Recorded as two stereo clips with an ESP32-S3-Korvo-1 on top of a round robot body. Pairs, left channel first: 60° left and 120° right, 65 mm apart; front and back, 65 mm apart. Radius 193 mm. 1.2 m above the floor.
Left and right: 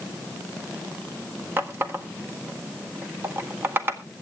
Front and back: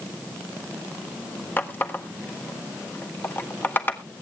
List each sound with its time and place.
1.6 s a running tap: 60° right, 0.8 m